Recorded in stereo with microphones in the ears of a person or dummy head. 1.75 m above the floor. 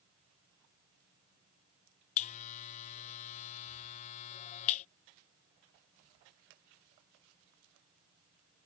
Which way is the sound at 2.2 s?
35° left (ahead or behind).